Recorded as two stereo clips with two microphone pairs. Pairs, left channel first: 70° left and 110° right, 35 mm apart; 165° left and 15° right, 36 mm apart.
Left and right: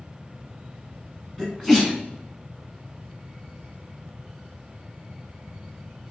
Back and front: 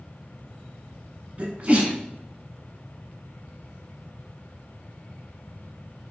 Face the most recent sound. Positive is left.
turn(degrees=-10)